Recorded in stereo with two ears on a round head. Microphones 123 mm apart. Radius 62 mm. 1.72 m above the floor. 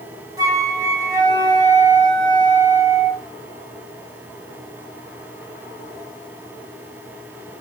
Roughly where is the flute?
Right.